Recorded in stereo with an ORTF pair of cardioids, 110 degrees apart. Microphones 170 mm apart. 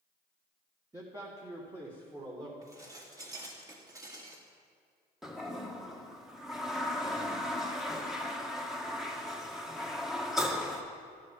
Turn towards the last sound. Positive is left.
turn(degrees=0)